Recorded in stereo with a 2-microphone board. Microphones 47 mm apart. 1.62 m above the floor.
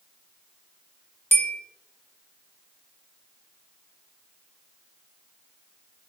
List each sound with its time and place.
1.3 s a bell: 55° left (ahead or behind), 1.0 m